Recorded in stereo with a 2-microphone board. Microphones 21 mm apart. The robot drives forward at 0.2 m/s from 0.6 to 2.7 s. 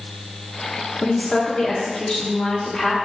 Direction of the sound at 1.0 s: 40° left (ahead or behind).